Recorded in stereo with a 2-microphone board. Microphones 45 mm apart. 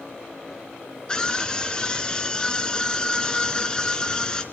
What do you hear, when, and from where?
1.1 s a scream: 20° left (ahead or behind), 2.0 m